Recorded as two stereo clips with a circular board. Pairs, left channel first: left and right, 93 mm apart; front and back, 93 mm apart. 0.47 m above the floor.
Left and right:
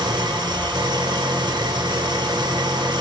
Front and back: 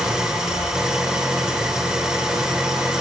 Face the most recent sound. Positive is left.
turn(degrees=-100)